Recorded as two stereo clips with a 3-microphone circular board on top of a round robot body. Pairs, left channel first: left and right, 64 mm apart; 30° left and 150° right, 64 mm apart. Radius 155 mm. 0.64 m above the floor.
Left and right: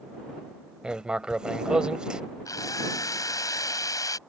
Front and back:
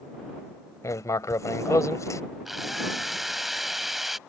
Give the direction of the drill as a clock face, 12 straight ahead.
8 o'clock.